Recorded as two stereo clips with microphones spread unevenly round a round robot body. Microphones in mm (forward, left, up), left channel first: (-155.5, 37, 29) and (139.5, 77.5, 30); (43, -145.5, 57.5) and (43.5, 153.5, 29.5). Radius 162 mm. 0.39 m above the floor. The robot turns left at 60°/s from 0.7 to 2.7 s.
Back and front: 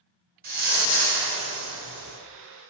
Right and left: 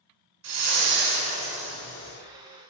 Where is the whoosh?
65° left, 3 m; by 2.2 s 25° right, 3 m.